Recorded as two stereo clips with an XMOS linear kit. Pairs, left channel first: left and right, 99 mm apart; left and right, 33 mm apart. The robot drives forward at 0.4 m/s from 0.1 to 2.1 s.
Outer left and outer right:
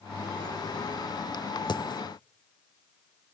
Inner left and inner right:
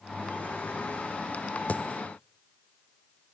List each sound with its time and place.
1.7 s a dropped coin: 45° left (ahead or behind), 1.2 m; by 2.0 s 50° left (ahead or behind), 1.1 m